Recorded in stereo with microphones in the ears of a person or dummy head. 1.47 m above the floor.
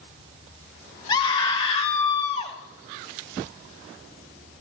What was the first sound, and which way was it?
A scream, 25° left (ahead or behind).